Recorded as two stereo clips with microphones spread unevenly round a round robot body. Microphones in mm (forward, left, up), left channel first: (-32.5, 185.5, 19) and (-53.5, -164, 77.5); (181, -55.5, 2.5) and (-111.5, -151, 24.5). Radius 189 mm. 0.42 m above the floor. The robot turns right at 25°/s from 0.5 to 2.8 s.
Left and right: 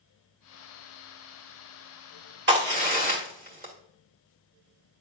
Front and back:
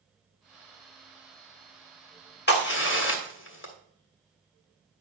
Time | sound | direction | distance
2.5 | a crack | 30° right | 2.5 m